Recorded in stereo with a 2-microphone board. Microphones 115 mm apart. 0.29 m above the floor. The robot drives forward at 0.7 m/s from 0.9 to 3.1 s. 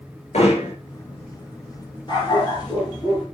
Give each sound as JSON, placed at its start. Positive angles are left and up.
{"t": 0.3, "sound": "hammering", "side_deg": 70, "distance_m": 5.0}
{"t": 2.1, "sound": "a dog barking", "side_deg": 40, "distance_m": 3.5}